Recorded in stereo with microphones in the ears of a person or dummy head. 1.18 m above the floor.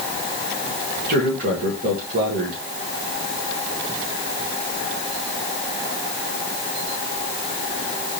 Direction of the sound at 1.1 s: 50° right (ahead or behind).